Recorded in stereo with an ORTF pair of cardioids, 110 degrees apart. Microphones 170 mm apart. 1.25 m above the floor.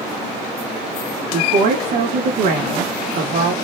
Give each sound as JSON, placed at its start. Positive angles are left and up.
{"t": 1.3, "sound": "a woman speaking", "azimuth_deg": -65, "distance_m": 2.0}